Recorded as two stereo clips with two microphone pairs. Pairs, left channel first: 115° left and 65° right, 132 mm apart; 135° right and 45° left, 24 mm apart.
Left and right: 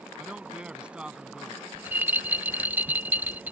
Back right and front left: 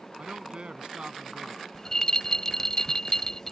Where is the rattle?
125° right.